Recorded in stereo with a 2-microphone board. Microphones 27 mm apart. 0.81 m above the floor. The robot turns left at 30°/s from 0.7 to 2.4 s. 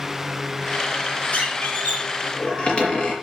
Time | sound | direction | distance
1.3 | a squeak | 75° left | 5.5 m